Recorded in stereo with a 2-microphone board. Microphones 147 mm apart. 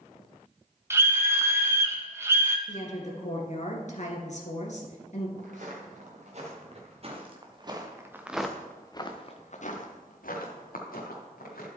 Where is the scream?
20° right (ahead or behind), 1.0 m.